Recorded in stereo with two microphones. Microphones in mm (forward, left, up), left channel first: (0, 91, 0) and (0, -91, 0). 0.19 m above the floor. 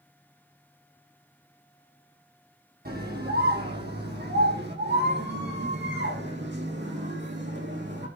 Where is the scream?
60° right (ahead or behind), 5.5 m; by 8.1 s 80° right, 9.5 m.